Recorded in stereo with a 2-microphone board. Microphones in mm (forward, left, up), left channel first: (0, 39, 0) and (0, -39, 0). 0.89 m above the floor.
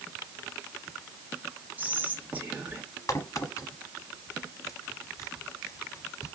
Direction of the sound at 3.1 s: 45° left (ahead or behind).